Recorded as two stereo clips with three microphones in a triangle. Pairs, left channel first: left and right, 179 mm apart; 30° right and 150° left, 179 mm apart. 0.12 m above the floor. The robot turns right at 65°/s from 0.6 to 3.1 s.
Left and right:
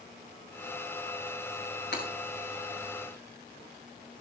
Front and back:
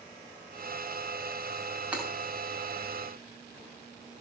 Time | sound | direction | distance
1.9 | breaking glass | 65° left | 8 m